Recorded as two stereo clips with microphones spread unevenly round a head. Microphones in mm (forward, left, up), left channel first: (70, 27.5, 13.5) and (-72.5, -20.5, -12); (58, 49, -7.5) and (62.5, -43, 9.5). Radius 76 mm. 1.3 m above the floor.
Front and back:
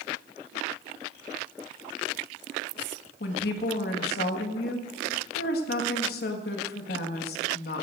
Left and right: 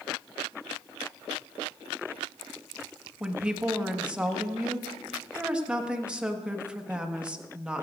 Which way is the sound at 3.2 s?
10° right.